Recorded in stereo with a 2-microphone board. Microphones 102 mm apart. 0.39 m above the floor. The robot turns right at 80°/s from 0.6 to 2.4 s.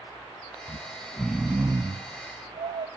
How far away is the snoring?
About 0.6 m.